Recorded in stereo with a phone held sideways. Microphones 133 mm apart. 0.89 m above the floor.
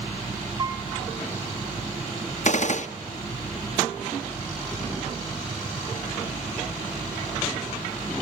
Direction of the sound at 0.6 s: 25° right (ahead or behind).